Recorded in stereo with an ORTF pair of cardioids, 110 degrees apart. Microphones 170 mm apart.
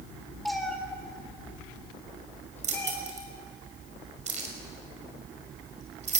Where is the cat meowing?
Straight ahead, 3.5 m; by 2.9 s 10° left, 5.5 m.